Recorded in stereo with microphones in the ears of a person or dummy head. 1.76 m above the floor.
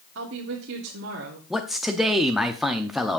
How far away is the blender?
No blender in this recording.